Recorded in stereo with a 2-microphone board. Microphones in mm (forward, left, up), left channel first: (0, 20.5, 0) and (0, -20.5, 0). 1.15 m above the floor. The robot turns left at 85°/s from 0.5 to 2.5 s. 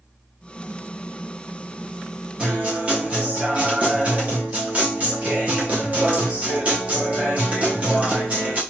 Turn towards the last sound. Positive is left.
turn(degrees=-35)  # may be behind; listen again after turning